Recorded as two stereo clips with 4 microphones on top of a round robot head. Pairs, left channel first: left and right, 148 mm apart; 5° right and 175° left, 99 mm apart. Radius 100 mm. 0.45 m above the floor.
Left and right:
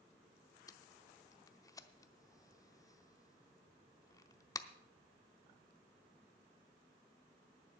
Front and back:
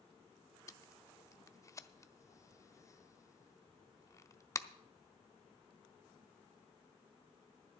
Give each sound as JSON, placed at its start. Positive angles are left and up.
{"t": 0.7, "sound": "tape being pulled", "azimuth_deg": 35, "distance_m": 0.7}